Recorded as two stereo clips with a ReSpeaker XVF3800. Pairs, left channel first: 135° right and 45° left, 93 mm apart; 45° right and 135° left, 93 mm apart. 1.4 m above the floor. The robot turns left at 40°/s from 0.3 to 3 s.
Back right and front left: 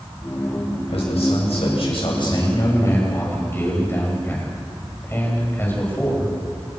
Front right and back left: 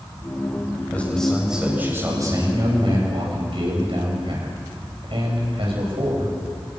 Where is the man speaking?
115° right, 9 m; by 6.3 s 160° left, 9 m.